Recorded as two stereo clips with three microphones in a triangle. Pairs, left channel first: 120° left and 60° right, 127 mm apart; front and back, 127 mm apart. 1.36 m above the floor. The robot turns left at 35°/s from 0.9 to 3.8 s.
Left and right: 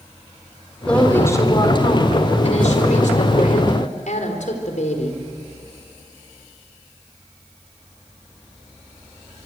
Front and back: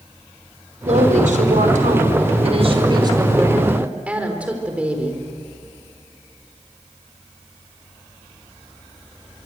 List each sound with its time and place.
0.8 s a woman speaking: 160° right, 4.5 m; by 5.2 s 100° left, 4.5 m